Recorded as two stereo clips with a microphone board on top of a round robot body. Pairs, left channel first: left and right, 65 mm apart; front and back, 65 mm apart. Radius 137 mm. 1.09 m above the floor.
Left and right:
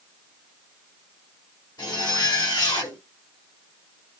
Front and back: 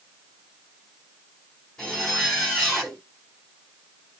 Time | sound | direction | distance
1.8 | a zipper | 80° left | 1.7 m